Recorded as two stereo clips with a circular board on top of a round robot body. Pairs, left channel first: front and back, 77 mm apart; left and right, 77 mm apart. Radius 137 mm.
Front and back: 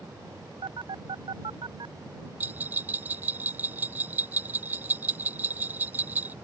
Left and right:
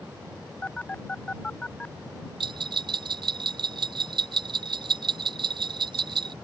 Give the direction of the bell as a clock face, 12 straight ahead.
4 o'clock.